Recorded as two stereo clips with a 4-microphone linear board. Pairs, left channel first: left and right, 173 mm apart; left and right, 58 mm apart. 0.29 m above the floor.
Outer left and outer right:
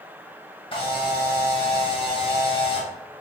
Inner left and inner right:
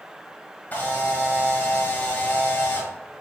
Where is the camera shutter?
30° left (ahead or behind), 1.4 m.